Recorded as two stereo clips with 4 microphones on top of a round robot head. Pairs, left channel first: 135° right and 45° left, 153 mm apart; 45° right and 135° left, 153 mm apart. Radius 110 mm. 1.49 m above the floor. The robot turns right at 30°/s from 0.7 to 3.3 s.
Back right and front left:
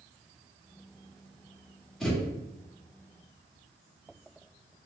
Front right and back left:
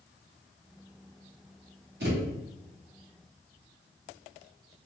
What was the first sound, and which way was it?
A thud, 140° left.